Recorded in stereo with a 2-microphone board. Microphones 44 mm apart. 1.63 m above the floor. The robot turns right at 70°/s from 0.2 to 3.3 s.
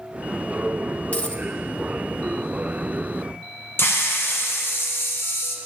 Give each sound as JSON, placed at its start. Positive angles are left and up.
{"t": 1.1, "sound": "a dropped coin", "side_deg": 35, "distance_m": 1.0}
{"t": 3.8, "sound": "a hiss", "side_deg": 55, "distance_m": 1.3}